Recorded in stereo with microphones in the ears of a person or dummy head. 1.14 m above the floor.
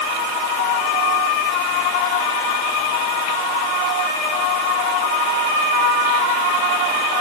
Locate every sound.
Only background noise.